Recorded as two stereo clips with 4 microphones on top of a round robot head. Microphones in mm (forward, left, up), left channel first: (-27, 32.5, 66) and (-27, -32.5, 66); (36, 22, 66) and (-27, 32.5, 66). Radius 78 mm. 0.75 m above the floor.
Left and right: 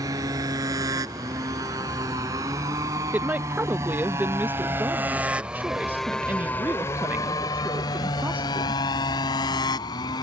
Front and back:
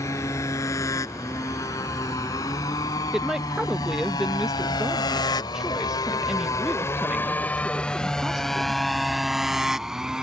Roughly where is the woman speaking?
Behind right.